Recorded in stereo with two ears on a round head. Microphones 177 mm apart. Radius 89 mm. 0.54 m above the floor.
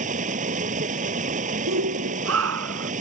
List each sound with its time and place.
0.0 s running water: 40° right (ahead or behind)
1.7 s a shout: 80° right